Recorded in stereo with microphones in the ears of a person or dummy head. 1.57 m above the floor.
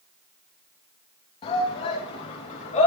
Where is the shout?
30° left (ahead or behind), 2.5 m; by 2.9 s 35° left (ahead or behind), 3.5 m.